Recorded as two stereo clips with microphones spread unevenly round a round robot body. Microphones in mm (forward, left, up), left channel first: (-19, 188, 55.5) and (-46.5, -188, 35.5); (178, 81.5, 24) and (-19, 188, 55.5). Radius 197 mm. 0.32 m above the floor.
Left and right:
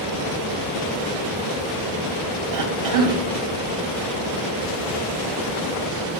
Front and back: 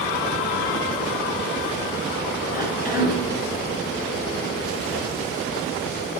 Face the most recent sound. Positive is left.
turn(degrees=-120)